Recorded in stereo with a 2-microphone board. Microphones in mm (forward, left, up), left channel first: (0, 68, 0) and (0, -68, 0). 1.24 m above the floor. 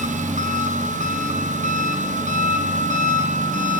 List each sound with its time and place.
0.0 s an engine running: 65° right (ahead or behind), 0.7 m